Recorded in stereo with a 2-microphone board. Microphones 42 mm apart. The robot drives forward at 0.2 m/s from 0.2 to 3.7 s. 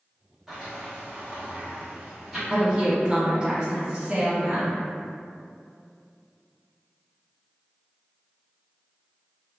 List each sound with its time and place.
0.5 s a sliding door: 10° right (ahead or behind), 1.2 m
2.5 s a woman speaking: 25° right (ahead or behind), 1.3 m; by 4.8 s 30° right (ahead or behind), 1.2 m